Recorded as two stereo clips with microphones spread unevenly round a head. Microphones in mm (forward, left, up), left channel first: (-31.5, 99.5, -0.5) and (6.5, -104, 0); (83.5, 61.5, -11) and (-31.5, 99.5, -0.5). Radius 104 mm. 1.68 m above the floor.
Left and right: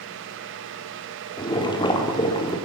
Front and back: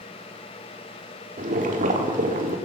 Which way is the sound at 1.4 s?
170° left.